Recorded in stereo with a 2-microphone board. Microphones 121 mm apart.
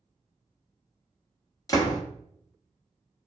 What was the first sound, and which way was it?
A door slam, 25° left (ahead or behind).